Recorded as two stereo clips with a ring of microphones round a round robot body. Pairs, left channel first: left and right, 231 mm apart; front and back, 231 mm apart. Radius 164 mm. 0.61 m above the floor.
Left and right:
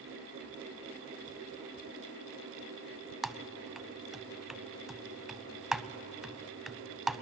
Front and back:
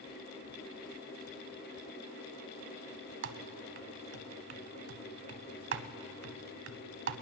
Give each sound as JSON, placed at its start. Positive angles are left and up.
{"t": 3.2, "sound": "typing on a keyboard", "azimuth_deg": 180, "distance_m": 0.6}